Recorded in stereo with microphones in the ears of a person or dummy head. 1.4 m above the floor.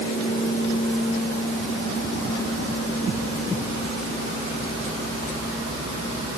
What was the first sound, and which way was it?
Only background noise.